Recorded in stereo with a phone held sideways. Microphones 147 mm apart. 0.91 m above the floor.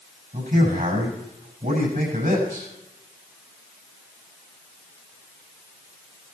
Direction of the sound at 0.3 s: 70° right (ahead or behind).